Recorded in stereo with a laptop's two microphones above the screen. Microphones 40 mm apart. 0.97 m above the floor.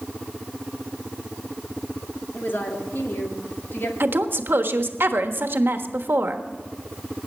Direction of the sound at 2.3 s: 65° left (ahead or behind).